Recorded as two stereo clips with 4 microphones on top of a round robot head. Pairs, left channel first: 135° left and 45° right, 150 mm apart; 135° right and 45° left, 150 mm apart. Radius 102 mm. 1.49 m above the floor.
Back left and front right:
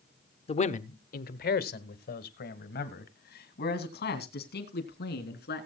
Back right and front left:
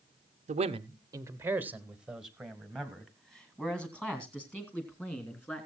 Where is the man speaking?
85° left, 0.6 m; by 5.7 s 145° left, 3.5 m.